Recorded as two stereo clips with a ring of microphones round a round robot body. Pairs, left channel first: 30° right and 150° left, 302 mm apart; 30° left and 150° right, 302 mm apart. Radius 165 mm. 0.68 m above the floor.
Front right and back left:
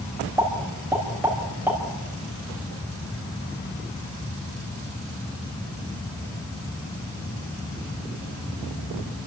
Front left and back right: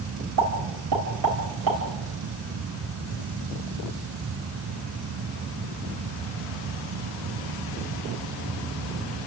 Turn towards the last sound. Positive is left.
turn(degrees=-125)